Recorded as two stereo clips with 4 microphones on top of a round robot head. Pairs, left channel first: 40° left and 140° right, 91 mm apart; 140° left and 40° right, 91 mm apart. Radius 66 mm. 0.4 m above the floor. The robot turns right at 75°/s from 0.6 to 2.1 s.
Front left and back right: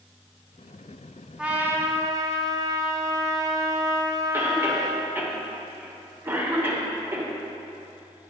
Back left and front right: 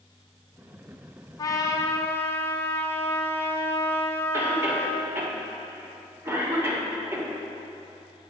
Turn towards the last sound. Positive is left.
turn(degrees=-90)